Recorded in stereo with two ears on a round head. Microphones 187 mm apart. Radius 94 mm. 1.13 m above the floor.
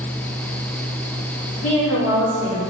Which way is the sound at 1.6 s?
80° left.